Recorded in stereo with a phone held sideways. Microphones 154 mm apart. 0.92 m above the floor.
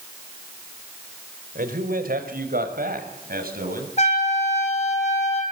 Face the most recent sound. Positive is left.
turn(degrees=50)  # may be behind; listen again after turning